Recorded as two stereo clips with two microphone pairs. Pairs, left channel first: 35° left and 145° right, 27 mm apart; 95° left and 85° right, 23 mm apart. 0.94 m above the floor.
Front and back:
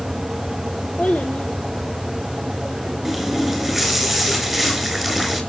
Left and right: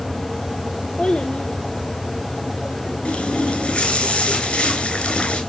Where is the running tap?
130° left, 3.5 m.